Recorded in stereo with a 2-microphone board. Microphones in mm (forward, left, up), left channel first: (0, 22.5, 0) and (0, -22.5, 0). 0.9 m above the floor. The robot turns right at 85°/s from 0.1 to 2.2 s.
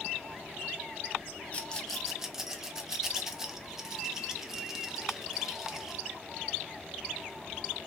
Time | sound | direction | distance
1.5 | a rattle | 30° left (ahead or behind) | 0.5 m